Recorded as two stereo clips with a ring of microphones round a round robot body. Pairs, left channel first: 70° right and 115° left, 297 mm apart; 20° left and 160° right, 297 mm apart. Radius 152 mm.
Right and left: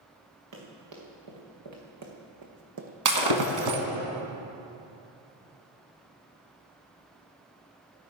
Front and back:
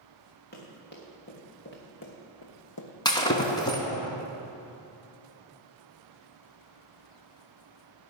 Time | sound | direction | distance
0.5 | running footsteps | 85° left | 4.5 m
3.0 | breaking glass | 100° left | 1.5 m